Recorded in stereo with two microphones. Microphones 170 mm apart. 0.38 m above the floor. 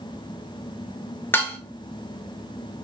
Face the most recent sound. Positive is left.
turn(degrees=15)  # may be behind; listen again after turning